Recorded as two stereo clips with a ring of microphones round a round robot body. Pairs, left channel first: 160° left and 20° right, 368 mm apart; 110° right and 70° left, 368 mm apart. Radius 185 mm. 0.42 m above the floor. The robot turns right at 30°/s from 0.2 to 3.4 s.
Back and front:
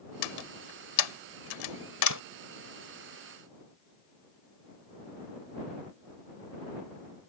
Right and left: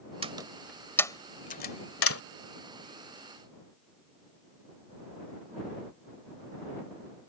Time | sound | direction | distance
0.2 | a door slam | 140° left | ?